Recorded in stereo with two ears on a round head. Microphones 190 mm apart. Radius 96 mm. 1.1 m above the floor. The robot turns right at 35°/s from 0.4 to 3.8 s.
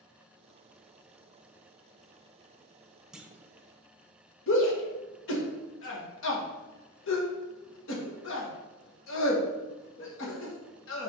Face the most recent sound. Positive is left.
turn(degrees=65)  # may be behind; listen again after turning